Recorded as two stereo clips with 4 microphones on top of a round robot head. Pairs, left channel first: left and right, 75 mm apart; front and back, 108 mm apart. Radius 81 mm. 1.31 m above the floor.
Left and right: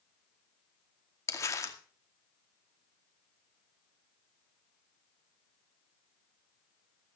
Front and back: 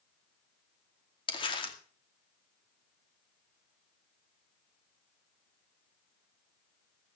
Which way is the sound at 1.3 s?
45° left.